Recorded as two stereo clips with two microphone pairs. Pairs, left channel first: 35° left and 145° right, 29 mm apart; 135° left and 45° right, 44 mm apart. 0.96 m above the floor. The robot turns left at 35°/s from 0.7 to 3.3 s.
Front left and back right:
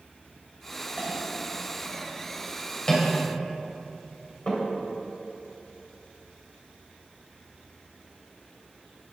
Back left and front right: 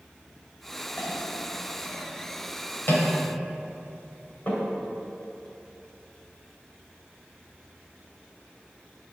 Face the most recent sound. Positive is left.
turn(degrees=85)